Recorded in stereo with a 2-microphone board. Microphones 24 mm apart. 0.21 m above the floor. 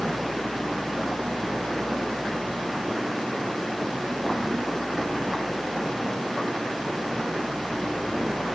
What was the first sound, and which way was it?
Only background noise.